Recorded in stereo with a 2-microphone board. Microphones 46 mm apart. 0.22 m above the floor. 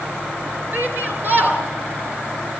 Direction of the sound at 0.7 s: 40° right (ahead or behind).